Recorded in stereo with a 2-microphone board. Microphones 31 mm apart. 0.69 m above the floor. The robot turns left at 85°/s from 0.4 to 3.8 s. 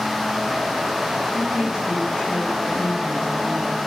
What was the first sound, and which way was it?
A woman speaking, 125° right.